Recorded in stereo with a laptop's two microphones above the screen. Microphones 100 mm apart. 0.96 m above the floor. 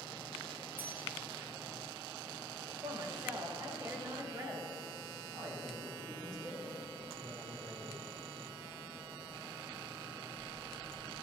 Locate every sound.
0.8 s a bell: 20° right (ahead or behind), 0.8 m
2.8 s a woman speaking: 40° right (ahead or behind), 1.8 m
5.3 s a man speaking: 85° right, 2.5 m